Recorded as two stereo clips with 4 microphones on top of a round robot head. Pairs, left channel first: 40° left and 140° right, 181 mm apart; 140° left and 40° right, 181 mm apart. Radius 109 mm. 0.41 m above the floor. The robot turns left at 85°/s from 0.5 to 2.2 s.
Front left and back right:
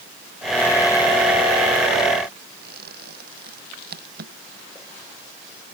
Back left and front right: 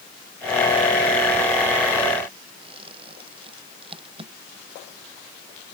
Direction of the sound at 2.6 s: 105° right.